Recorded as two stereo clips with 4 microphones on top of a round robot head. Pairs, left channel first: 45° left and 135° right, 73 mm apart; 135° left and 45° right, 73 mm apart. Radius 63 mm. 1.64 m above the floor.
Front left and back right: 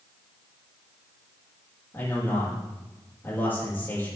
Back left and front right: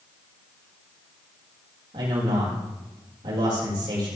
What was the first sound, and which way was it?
A man speaking, 15° right.